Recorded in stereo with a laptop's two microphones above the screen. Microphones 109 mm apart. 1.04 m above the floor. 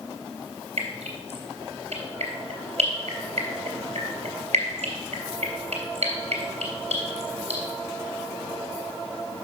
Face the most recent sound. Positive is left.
turn(degrees=-85)